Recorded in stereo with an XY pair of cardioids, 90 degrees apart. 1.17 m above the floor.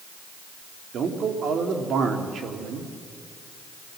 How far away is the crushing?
I don't hear crushing.